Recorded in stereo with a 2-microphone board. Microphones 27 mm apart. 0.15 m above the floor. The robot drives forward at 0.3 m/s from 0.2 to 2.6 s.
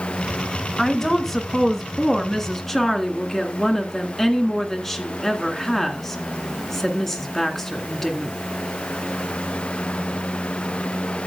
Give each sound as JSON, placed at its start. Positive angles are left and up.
{"t": 0.8, "sound": "a woman speaking", "side_deg": 10, "distance_m": 1.6}